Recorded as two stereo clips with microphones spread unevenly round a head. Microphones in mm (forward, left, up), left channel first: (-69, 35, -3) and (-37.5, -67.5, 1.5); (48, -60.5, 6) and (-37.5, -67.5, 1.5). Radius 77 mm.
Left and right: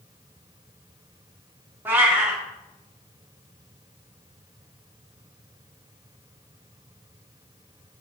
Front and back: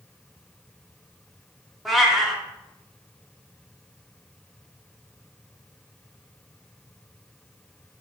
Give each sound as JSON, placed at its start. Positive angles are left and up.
{"t": 1.9, "sound": "a cat meowing", "azimuth_deg": -85, "distance_m": 1.0}